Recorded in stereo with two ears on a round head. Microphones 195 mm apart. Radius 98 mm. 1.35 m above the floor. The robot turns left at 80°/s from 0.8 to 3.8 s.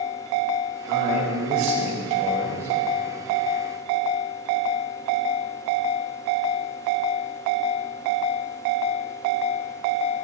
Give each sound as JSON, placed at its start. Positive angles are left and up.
{"t": 0.9, "sound": "a man speaking", "azimuth_deg": -50, "distance_m": 2.0}